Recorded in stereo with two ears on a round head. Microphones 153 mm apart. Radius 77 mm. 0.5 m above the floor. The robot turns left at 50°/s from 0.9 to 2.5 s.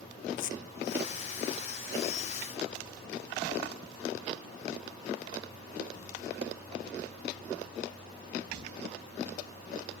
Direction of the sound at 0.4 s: 45° left (ahead or behind).